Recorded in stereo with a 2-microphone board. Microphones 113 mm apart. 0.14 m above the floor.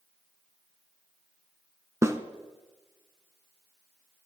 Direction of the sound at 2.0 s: 25° right (ahead or behind).